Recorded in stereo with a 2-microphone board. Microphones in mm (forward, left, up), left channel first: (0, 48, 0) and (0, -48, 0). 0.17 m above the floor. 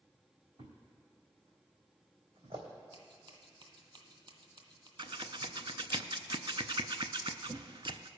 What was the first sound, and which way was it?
A thud, 75° right (ahead or behind).